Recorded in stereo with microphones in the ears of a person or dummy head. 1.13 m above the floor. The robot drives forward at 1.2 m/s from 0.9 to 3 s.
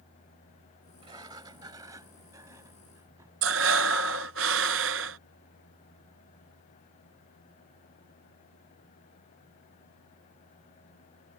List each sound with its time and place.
1.0 s a sliding door: 20° right (ahead or behind); by 3.3 s 15° right (ahead or behind)
3.4 s breathing: 60° right (ahead or behind)